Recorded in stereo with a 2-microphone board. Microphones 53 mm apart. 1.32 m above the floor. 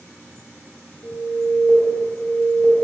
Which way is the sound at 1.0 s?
60° left (ahead or behind).